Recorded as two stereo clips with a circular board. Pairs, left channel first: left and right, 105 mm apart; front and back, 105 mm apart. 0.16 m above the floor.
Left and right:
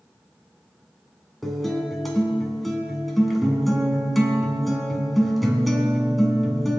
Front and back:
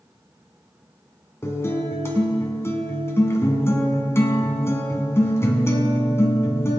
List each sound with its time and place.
1.4 s a guitar: straight ahead, 1.8 m